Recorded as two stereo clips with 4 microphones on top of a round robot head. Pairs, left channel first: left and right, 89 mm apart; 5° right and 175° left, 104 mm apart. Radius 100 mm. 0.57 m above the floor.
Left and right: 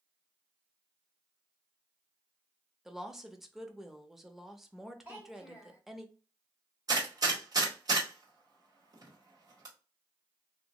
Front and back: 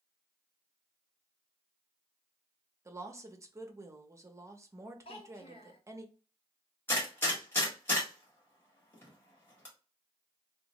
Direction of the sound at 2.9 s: 175° right.